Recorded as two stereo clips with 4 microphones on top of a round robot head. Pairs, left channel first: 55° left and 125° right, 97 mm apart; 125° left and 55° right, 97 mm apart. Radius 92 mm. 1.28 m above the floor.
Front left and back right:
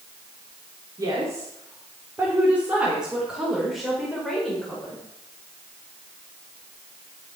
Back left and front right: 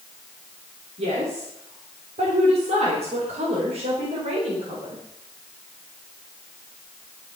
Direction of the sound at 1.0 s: 70° right.